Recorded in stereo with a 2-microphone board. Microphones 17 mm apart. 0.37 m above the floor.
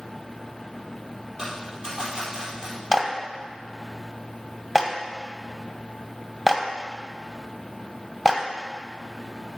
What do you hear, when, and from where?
1.4 s a dropped coin: 50° right (ahead or behind), 4.5 m
2.9 s a clap: 15° right (ahead or behind), 1.3 m